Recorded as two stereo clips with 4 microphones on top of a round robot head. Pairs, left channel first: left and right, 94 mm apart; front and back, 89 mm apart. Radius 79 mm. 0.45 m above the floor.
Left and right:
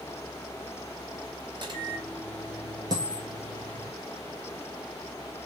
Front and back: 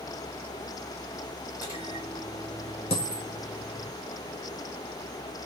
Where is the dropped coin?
25° right, 0.7 m.